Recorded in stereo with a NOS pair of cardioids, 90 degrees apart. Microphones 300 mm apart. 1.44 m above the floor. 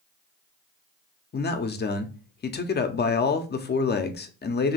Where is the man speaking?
30° left, 0.7 m.